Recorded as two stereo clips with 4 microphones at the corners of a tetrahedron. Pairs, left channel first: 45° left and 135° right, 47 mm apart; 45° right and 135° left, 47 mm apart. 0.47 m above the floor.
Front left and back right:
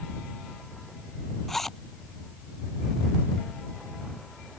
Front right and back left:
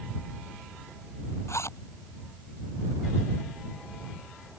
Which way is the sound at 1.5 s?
40° right.